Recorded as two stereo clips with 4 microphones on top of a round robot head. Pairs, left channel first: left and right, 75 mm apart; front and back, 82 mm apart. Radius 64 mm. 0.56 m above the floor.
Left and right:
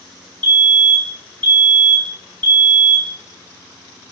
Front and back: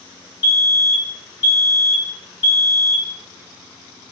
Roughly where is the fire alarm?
Behind left.